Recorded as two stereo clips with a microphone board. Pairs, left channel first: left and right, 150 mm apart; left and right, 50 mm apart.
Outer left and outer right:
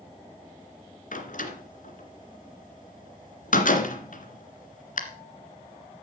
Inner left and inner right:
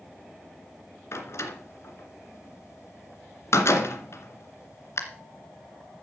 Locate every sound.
1.1 s a door slam: 60° left (ahead or behind), 2 m